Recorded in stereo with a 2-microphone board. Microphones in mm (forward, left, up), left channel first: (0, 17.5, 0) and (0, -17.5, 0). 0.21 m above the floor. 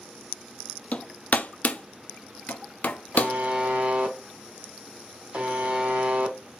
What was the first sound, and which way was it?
Hammering, 45° left (ahead or behind).